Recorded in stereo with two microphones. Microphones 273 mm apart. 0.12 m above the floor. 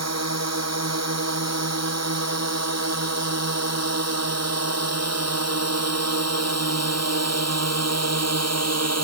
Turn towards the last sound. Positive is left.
turn(degrees=-70)  # may be behind; listen again after turning